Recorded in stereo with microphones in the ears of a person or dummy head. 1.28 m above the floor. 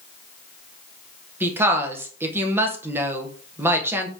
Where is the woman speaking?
10° right (ahead or behind), 0.8 m.